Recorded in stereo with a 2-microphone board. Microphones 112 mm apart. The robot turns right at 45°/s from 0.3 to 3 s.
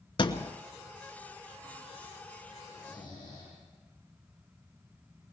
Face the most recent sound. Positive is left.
turn(degrees=35)  # may be behind; listen again after turning